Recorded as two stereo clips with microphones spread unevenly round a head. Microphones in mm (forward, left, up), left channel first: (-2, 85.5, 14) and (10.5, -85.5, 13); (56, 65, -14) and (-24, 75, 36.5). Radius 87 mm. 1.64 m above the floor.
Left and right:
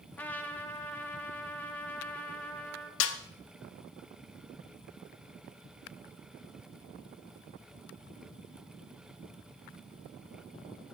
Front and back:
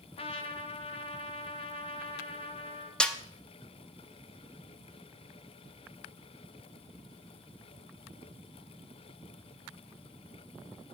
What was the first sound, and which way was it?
A trumpet, 15° left.